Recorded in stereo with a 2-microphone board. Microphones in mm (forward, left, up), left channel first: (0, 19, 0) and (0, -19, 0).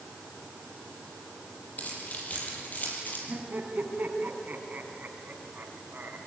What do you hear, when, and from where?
1.8 s keys jangling: 40° left (ahead or behind), 7 m; by 3.2 s 45° left (ahead or behind), 6 m
3.3 s laughter: 45° right (ahead or behind), 2.5 m